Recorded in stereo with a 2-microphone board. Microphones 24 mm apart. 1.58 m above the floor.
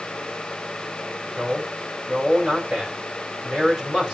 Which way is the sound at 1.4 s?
35° right (ahead or behind).